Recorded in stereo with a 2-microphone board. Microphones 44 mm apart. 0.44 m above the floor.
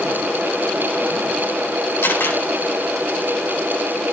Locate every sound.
2.0 s a camera shutter: 55° left (ahead or behind), 8.5 m